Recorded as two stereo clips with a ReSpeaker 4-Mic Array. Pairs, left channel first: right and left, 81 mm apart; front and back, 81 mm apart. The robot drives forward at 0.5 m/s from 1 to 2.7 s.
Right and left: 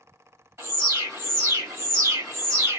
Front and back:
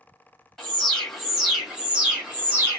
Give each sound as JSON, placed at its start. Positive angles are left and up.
{"t": 0.6, "sound": "an alarm", "azimuth_deg": 80, "distance_m": 1.5}